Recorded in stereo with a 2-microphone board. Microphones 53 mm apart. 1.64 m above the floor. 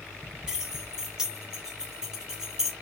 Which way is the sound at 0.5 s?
10° right (ahead or behind).